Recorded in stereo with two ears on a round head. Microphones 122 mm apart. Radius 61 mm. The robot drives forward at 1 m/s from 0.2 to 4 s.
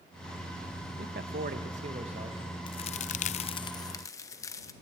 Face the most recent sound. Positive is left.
turn(degrees=25)  # may be behind; listen again after turning